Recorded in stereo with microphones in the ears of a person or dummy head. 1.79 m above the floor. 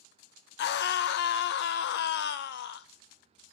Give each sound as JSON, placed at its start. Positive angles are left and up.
{"t": 0.6, "sound": "a scream", "side_deg": 55, "distance_m": 0.7}